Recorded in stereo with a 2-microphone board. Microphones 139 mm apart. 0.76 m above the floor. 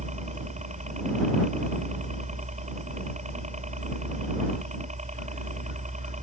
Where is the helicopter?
55° right (ahead or behind).